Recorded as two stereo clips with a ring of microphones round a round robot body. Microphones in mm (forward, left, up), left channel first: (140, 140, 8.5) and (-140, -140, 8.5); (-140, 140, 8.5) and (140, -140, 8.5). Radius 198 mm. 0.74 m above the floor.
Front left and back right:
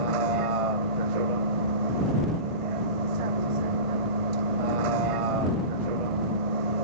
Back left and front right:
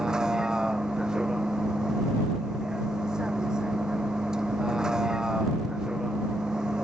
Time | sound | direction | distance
0.0 | a vehicle | 135° right | ?